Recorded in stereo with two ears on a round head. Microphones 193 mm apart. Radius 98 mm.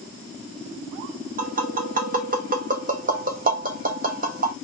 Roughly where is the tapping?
Right.